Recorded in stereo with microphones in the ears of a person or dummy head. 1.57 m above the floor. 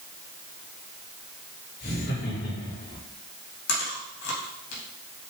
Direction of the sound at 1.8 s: 60° left (ahead or behind).